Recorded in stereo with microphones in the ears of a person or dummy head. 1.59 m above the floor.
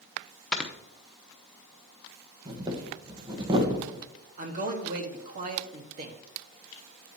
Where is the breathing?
20° right (ahead or behind), 1.2 m.